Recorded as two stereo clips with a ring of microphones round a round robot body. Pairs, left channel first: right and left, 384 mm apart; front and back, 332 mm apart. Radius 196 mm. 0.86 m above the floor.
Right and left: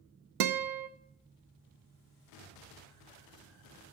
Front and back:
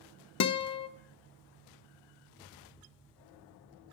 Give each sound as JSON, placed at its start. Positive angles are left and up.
{"t": 0.4, "sound": "a guitar", "azimuth_deg": 45, "distance_m": 0.6}